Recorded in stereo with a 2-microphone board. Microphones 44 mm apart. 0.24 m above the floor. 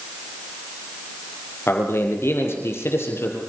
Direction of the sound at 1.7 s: 70° left (ahead or behind).